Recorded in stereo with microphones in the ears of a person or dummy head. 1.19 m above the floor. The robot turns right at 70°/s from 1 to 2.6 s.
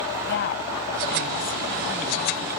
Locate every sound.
0.3 s a woman speaking: 55° left (ahead or behind); by 2.4 s 40° right (ahead or behind)